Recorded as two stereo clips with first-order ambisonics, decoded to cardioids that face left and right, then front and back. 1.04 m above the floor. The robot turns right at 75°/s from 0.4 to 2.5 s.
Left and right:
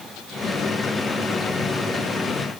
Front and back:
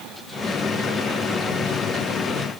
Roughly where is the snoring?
No snoring in this recording.